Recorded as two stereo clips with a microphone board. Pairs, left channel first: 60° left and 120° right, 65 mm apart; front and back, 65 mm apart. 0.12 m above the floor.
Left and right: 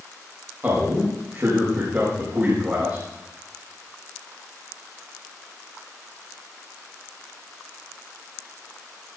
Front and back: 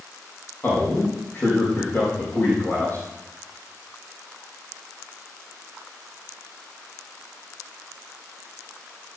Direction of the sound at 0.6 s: 55° right.